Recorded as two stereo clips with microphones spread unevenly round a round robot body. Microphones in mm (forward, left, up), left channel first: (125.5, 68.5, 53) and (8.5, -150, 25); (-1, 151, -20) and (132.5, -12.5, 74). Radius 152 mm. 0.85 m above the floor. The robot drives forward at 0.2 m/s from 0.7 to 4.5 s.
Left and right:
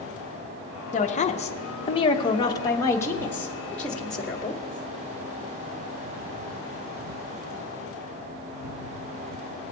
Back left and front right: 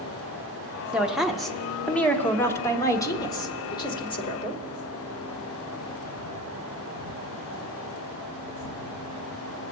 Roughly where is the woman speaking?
Left.